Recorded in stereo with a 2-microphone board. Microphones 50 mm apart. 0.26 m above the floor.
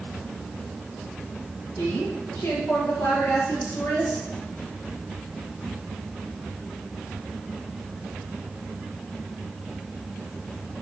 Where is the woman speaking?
70° left (ahead or behind), 6 m; by 4.2 s 80° left, 5.5 m.